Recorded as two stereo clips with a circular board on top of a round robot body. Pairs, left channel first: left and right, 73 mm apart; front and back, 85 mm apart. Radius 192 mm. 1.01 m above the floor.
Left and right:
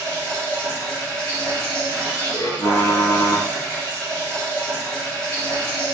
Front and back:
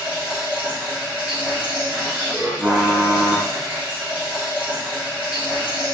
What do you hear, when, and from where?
0.0 s running water: 105° left, 2.5 m
2.6 s typing on a keyboard: 120° left, 1.3 m